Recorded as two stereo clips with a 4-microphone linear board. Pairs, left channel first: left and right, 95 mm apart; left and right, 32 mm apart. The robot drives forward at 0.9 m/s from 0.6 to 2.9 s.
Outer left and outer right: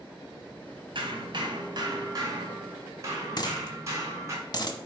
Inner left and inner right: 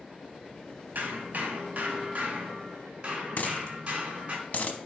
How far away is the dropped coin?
About 0.9 m.